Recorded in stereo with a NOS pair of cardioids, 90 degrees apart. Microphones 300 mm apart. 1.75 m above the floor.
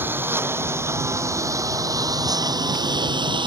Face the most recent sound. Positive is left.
turn(degrees=-15)